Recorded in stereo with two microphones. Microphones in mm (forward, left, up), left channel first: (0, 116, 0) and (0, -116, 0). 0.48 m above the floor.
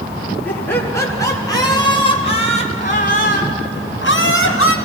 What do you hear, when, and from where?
0.5 s laughter: 10° left (ahead or behind), 5.5 m; by 4.8 s 70° left (ahead or behind), 3 m